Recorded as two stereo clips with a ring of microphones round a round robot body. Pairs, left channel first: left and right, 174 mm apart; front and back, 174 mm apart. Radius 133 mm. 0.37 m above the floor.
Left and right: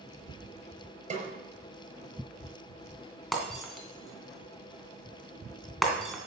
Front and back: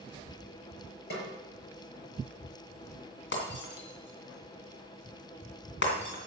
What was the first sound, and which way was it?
A snare drum, 40° right.